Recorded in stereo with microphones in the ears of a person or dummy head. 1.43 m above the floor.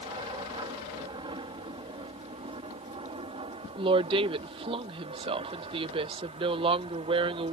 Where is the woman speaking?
30° right (ahead or behind).